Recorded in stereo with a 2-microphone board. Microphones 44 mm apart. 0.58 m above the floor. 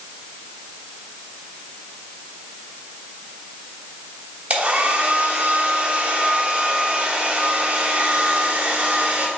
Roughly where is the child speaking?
I don't hear a child speaking.